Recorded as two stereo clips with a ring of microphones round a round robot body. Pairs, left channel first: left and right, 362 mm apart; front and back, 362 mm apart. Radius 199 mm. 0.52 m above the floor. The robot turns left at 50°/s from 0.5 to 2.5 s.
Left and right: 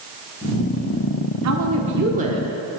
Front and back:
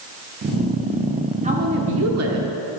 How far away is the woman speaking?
About 1.3 m.